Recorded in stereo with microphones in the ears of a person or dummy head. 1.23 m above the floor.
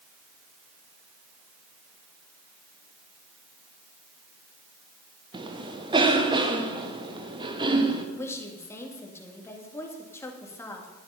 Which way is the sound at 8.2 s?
15° left (ahead or behind).